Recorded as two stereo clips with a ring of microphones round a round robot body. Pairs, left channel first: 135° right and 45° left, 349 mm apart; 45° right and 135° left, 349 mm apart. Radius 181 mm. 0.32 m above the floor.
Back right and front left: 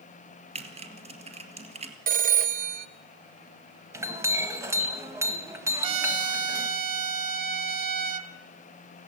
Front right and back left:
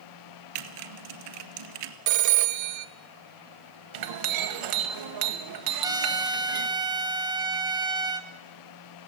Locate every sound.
0.6 s typing on a keyboard: 120° left, 1.9 m
2.1 s a phone ringing: 110° left, 1.1 m
3.9 s a clink: 125° left, 1.7 m
5.8 s a trumpet: 55° left, 1.2 m